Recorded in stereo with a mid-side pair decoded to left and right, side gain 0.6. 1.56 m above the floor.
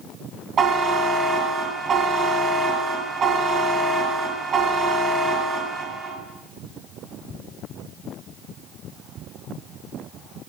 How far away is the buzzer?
About 2 m.